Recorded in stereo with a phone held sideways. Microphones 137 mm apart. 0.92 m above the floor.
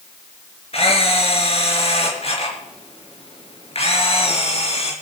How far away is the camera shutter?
About 4 m.